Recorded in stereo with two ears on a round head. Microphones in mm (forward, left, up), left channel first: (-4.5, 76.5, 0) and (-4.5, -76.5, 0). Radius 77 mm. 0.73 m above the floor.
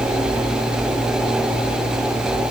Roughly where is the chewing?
No chewing in this recording.